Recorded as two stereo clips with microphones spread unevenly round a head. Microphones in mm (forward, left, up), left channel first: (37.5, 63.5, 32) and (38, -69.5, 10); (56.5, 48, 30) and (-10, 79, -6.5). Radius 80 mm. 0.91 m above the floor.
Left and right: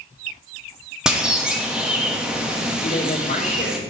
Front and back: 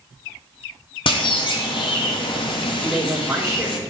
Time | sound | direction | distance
1.1 | a bird | 10° right | 1.5 m
2.8 | a man speaking | 70° left | 3.5 m